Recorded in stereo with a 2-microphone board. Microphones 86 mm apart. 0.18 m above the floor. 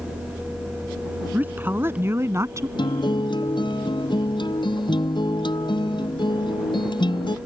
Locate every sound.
1.3 s a woman speaking: 20° right (ahead or behind); by 2.7 s 35° right (ahead or behind)
2.8 s a guitar: 60° left (ahead or behind)